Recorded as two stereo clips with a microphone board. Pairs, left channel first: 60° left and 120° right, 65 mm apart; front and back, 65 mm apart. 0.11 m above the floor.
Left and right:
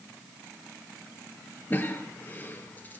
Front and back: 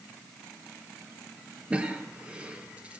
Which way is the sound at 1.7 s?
115° left.